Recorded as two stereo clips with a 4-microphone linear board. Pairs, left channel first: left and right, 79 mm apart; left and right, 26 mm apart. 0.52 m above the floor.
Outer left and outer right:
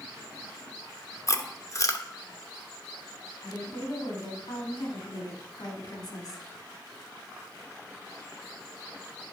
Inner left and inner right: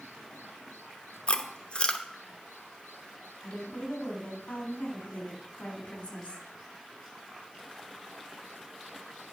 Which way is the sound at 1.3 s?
45° left (ahead or behind).